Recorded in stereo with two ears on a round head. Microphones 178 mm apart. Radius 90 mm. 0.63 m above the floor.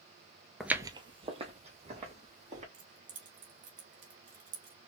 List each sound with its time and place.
0.6 s footsteps: centre (ahead or behind), 0.6 m; by 2.6 s 35° right (ahead or behind), 3 m
2.7 s keys jangling: 40° right (ahead or behind), 2 m